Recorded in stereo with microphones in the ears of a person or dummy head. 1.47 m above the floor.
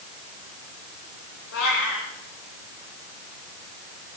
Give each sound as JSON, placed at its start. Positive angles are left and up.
{"t": 1.5, "sound": "a cat meowing", "side_deg": 80, "distance_m": 8.0}